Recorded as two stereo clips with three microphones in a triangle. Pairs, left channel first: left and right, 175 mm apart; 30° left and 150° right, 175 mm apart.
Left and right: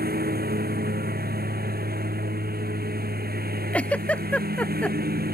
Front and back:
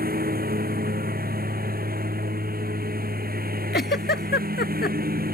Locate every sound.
0.0 s a lawn mower: 120° right
3.7 s a giggle: 10° left